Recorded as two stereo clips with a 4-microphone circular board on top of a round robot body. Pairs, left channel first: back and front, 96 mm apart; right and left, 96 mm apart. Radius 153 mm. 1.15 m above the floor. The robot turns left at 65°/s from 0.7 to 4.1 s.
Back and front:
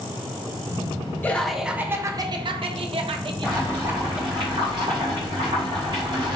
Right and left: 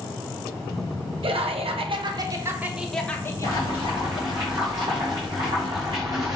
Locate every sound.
1.2 s laughter: 110° left, 0.7 m; by 4.4 s 75° right, 0.7 m
3.4 s boiling: 85° left, 0.5 m; by 6.4 s 40° left, 0.5 m